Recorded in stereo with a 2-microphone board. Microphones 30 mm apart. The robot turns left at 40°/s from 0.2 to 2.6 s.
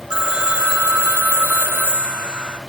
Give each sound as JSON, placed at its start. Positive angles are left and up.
{"t": 0.1, "sound": "a phone ringing", "azimuth_deg": -30, "distance_m": 1.1}